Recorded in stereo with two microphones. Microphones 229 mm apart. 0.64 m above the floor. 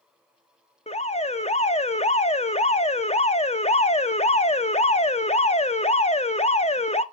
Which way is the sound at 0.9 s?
25° left (ahead or behind).